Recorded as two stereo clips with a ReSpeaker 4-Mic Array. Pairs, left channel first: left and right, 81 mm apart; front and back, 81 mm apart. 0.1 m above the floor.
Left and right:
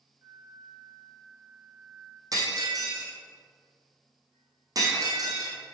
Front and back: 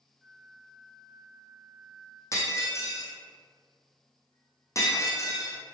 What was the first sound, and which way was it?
A flute, 95° right.